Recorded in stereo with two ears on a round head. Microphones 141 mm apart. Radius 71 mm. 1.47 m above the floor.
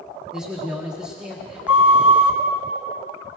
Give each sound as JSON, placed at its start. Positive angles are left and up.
{"t": 0.3, "sound": "a man speaking", "side_deg": -5, "distance_m": 1.6}
{"t": 1.7, "sound": "a flute", "side_deg": -10, "distance_m": 1.4}